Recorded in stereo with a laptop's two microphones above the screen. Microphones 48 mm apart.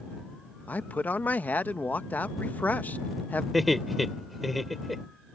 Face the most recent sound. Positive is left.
turn(degrees=-5)  # may be behind; listen again after turning